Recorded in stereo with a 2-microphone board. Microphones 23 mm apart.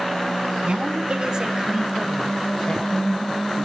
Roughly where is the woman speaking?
Right.